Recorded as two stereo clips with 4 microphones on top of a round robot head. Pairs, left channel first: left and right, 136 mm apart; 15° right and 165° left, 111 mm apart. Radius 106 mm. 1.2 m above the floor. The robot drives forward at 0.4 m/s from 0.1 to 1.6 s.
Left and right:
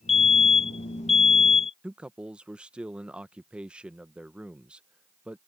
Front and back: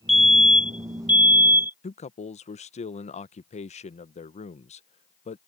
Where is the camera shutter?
No camera shutter in this recording.